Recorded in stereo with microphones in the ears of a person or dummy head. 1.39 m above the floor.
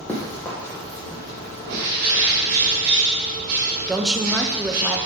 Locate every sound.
0.1 s running footsteps: 5° left (ahead or behind), 2 m; by 1.8 s 30° left (ahead or behind), 4 m
1.6 s a bird: 50° right (ahead or behind), 2.0 m
3.9 s a woman speaking: 5° right (ahead or behind), 0.8 m